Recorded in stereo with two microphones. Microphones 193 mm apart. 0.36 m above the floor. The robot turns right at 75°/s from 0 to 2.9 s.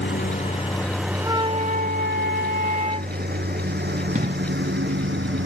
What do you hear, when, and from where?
0.0 s a lawn mower: 70° left (ahead or behind); by 5.5 s 75° right (ahead or behind)
1.2 s a flute: 165° right; by 3.1 s 40° right
4.2 s an explosion: 45° right (ahead or behind)